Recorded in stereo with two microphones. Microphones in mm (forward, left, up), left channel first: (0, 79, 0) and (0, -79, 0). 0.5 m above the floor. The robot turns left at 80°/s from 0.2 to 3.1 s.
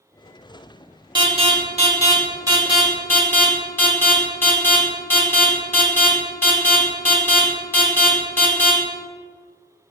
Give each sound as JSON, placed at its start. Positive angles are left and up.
{"t": 1.1, "sound": "an alarm", "side_deg": -25, "distance_m": 1.3}